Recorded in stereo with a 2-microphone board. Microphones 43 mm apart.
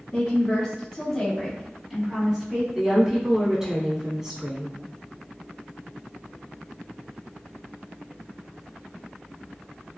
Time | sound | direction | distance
0.1 | a woman speaking | 15° left (ahead or behind) | 1.8 m
2.8 | a woman speaking | 15° right (ahead or behind) | 1.2 m